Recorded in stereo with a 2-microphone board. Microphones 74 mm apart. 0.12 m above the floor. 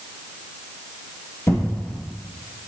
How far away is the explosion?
About 1.9 m.